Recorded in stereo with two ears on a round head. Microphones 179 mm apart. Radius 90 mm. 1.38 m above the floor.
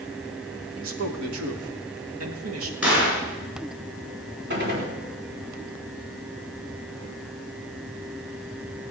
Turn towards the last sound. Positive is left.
turn(degrees=-60)  # may be behind; listen again after turning